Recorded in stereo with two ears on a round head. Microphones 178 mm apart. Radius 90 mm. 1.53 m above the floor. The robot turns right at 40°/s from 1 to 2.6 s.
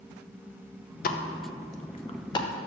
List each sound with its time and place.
1.0 s a pop: 45° left (ahead or behind), 0.6 m; by 2.5 s 20° left (ahead or behind), 0.6 m